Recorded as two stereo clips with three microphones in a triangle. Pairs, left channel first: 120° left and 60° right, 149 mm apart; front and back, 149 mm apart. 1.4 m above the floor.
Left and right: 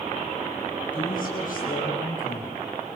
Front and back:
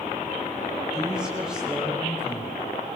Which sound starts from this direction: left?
A woman speaking, at 0.9 s.